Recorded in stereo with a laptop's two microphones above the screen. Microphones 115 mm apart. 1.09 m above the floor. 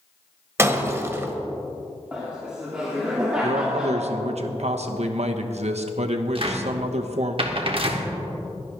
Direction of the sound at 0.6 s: 20° right (ahead or behind).